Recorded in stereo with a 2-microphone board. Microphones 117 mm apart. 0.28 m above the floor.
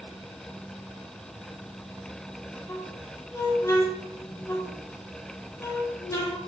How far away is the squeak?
About 3 m.